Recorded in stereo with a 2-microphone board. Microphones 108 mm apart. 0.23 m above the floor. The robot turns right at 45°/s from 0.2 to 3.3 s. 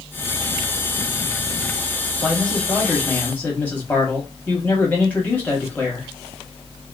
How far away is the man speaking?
About 0.9 m.